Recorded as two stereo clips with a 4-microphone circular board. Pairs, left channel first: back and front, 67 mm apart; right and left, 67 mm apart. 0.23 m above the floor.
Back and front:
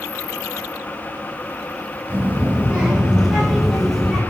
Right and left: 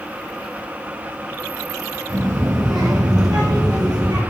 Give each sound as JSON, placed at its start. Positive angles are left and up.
{"t": 2.1, "sound": "a child speaking", "azimuth_deg": 60, "distance_m": 2.5}